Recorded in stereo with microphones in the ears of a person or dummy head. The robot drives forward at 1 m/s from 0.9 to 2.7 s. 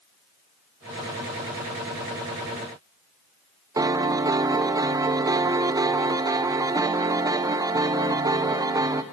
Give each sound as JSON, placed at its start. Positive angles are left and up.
{"t": 3.8, "sound": "a piano", "side_deg": -15, "distance_m": 0.7}